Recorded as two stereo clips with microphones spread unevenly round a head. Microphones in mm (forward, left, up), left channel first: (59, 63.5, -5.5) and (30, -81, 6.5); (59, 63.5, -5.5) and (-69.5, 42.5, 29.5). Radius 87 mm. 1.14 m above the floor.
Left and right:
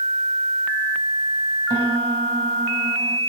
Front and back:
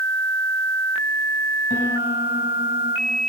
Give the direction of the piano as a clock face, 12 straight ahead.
2 o'clock.